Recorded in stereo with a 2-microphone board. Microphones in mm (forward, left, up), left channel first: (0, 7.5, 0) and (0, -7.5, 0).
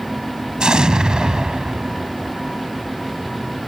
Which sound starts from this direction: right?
An explosion, at 0.6 s.